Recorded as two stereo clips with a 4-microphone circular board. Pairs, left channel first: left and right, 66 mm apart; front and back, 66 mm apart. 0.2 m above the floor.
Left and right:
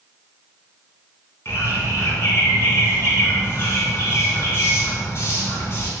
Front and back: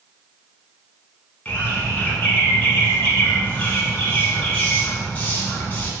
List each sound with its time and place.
1.4 s a bird: 60° left, 1.0 m